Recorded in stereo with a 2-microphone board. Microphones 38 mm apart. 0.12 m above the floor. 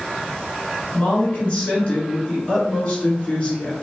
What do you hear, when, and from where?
0.9 s a woman speaking: 30° left (ahead or behind), 1.6 m